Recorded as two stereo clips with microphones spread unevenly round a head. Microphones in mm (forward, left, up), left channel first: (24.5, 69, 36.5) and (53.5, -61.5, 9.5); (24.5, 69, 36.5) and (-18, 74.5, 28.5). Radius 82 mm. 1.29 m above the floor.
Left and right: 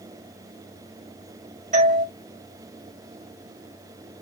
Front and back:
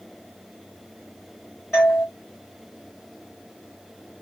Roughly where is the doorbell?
Right.